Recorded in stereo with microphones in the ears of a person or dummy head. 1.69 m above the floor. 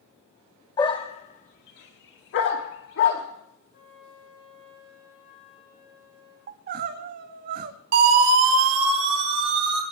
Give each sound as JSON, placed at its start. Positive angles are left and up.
{"t": 0.8, "sound": "a dog barking", "side_deg": 20, "distance_m": 1.4}
{"t": 3.7, "sound": "a flute", "side_deg": 70, "distance_m": 8.0}
{"t": 6.5, "sound": "crying", "side_deg": -55, "distance_m": 1.0}
{"t": 7.9, "sound": "a siren", "side_deg": -50, "distance_m": 4.5}